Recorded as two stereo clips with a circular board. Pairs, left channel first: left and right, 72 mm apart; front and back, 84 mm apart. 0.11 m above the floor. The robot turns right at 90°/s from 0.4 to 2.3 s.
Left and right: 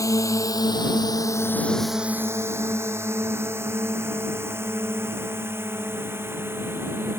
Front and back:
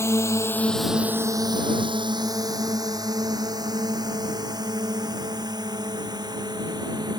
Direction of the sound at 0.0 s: 55° left.